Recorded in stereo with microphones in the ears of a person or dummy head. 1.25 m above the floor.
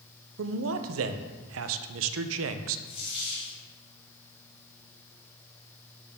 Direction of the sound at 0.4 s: 75° right (ahead or behind).